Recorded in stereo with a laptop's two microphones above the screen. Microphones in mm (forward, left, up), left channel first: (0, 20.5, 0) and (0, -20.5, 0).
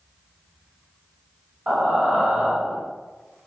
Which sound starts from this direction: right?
Breathing, at 1.7 s.